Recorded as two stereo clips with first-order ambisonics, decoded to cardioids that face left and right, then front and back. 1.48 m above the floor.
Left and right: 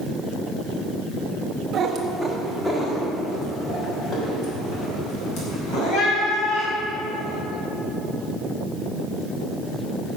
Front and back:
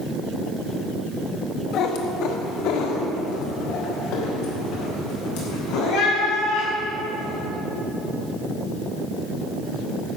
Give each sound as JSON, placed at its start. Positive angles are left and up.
{"t": 1.7, "sound": "a cat meowing", "azimuth_deg": -35, "distance_m": 1.2}